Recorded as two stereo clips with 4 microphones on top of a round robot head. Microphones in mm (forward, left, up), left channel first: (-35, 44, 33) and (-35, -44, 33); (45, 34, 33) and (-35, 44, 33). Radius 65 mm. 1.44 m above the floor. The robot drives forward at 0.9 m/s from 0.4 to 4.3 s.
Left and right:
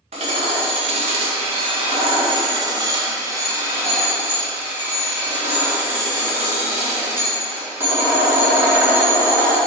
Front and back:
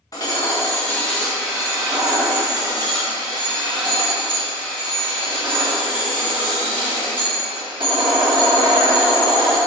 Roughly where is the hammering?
Ahead right.